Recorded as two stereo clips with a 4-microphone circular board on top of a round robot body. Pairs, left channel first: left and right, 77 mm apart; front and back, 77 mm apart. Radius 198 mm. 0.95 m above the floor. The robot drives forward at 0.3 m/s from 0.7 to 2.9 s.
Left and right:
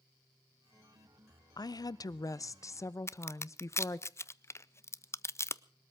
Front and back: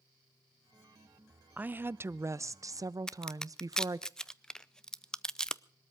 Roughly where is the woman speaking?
Left.